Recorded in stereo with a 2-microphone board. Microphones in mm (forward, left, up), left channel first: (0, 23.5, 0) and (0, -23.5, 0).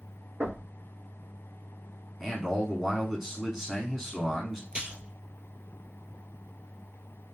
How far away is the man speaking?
About 1.6 m.